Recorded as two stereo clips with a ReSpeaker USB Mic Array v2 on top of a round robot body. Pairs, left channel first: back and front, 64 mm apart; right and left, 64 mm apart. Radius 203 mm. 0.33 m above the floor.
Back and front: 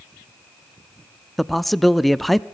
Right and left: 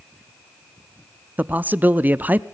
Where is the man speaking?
95° left, 0.9 m.